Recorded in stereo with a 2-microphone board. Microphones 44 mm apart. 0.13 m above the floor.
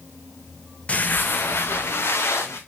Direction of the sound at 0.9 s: 30° left (ahead or behind).